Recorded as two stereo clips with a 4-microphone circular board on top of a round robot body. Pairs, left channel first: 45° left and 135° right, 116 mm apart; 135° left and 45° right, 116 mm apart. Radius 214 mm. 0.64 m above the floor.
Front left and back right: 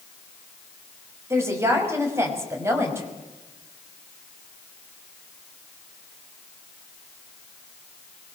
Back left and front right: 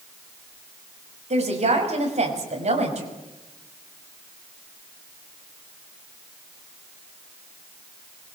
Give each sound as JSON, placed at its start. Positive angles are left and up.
{"t": 1.3, "sound": "a woman speaking", "azimuth_deg": -70, "distance_m": 5.5}